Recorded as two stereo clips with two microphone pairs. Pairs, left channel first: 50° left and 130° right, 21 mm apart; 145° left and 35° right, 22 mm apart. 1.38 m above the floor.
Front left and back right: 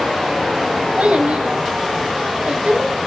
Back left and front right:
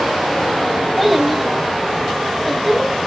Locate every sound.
1.0 s a child speaking: 125° right, 1.6 m